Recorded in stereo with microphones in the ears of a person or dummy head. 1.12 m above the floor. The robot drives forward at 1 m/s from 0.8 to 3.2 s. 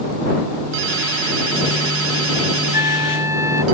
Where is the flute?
10° right (ahead or behind).